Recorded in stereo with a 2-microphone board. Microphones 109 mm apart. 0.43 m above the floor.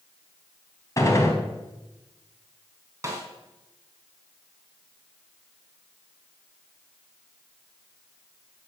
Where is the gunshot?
30° left (ahead or behind), 3.5 m.